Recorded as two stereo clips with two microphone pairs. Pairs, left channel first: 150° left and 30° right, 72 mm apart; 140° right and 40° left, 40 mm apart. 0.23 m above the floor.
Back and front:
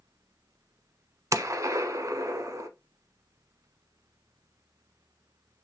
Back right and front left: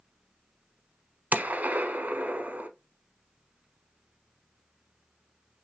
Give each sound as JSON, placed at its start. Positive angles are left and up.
{"t": 1.3, "sound": "a gunshot", "azimuth_deg": 5, "distance_m": 0.6}